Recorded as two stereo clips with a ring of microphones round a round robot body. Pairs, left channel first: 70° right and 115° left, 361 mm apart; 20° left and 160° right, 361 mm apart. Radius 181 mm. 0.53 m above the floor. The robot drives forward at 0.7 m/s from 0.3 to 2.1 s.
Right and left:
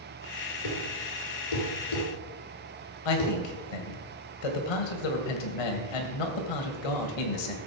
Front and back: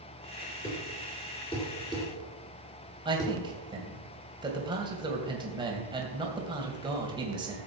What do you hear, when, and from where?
0.6 s a thud: 50° right, 5 m; by 3.4 s 60° right, 4.5 m
3.0 s a man speaking: 80° right, 2.5 m